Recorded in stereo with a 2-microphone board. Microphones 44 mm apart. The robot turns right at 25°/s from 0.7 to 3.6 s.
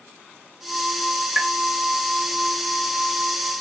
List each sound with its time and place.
1.4 s tapping: 5° right (ahead or behind), 2 m; by 1.5 s 10° right (ahead or behind), 2 m